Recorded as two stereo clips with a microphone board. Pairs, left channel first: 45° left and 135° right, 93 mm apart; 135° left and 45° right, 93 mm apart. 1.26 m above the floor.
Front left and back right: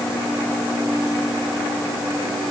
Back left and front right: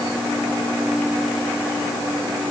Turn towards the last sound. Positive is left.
No sound to turn to.